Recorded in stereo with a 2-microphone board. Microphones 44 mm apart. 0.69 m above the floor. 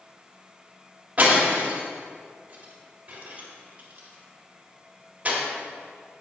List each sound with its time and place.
1.2 s breaking glass: 35° right (ahead or behind), 1.8 m